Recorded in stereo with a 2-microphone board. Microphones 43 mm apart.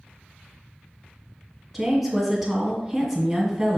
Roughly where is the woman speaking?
Centre.